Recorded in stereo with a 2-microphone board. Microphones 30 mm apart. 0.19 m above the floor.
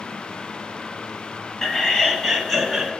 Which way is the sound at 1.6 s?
15° left (ahead or behind).